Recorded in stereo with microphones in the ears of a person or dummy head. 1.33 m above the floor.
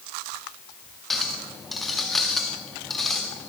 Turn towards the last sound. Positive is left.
turn(degrees=-5)  # may be behind; listen again after turning